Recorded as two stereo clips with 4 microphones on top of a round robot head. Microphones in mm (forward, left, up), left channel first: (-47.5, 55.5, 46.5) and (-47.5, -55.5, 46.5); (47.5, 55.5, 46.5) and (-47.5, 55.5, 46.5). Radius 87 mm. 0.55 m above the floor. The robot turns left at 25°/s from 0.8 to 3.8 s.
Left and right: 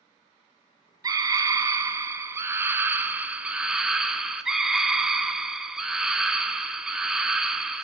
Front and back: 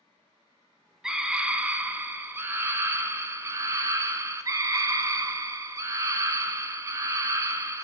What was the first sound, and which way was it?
A scream, 100° right.